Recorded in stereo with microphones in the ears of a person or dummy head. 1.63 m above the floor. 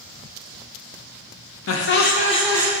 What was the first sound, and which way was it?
Laughter, 80° left.